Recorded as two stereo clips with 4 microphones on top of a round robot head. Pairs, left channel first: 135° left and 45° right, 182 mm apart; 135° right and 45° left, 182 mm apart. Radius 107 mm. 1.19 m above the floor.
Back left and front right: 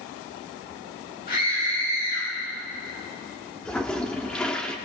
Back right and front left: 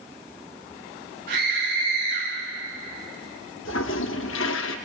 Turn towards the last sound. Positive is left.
turn(degrees=-140)